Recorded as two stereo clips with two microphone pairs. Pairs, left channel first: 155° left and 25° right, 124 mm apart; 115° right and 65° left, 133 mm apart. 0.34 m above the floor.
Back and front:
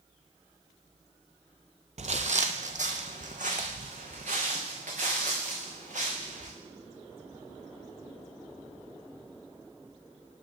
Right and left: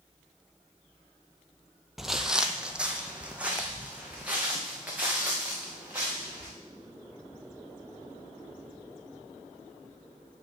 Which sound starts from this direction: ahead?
Footsteps, at 2.0 s.